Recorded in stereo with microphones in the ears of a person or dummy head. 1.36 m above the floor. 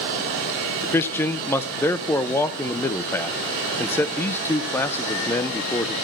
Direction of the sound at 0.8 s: 15° left (ahead or behind).